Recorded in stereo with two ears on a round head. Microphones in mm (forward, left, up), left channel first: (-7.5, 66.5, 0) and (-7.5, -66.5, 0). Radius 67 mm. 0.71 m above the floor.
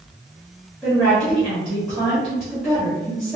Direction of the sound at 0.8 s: 5° right (ahead or behind).